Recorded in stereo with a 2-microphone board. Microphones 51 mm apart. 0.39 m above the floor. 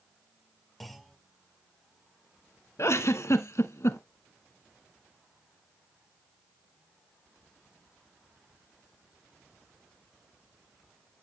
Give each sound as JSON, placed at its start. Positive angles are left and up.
{"t": 0.8, "sound": "a clunk", "side_deg": 5, "distance_m": 1.2}
{"t": 2.8, "sound": "a giggle", "side_deg": 65, "distance_m": 0.8}